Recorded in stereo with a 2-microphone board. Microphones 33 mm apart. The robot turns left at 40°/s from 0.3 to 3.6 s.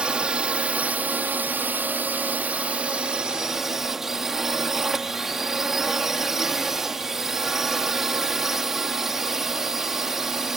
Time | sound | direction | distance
0.0 | a drone | 35° right | ?